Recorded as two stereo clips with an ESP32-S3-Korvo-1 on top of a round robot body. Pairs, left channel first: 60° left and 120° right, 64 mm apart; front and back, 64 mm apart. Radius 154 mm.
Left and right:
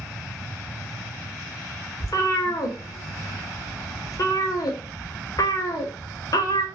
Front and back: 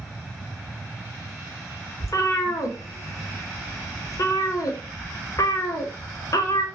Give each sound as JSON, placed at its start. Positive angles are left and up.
{"t": 2.0, "sound": "a cat meowing", "azimuth_deg": 35, "distance_m": 0.6}